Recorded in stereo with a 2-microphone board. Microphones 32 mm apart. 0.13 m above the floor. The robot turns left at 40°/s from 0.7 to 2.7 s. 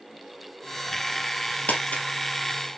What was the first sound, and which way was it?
Crumpling, 60° left (ahead or behind).